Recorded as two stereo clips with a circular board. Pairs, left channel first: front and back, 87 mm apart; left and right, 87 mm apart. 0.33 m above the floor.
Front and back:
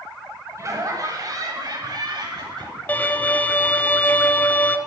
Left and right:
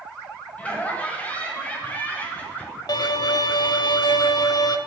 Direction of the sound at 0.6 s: 155° left.